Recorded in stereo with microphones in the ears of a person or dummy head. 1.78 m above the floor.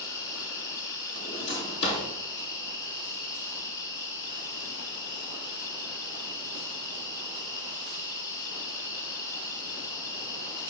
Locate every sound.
0.0 s an insect: 20° left (ahead or behind), 3 m
1.2 s a drawer: 30° left (ahead or behind), 4.5 m